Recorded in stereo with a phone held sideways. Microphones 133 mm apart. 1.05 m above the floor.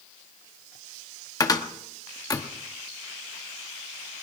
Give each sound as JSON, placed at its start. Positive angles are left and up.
{"t": 1.4, "sound": "a cupboard door", "side_deg": 30, "distance_m": 1.0}